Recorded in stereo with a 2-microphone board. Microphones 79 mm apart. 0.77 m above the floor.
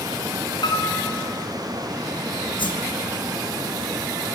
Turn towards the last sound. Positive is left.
turn(degrees=85)